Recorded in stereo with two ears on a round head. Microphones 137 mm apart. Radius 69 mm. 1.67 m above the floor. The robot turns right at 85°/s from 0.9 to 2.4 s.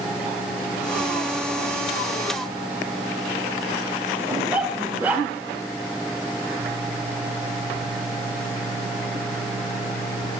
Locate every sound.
4.3 s a dog barking: 10° right (ahead or behind), 1.4 m